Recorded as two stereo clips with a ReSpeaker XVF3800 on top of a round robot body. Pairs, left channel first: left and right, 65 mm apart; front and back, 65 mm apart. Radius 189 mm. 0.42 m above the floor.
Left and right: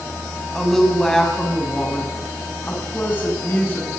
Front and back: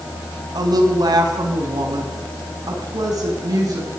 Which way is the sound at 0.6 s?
175° left.